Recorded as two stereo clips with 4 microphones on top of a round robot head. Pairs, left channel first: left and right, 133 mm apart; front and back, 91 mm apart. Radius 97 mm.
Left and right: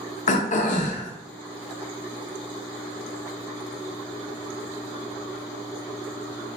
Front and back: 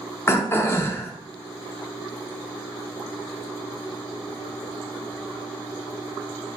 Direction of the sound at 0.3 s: 65° left.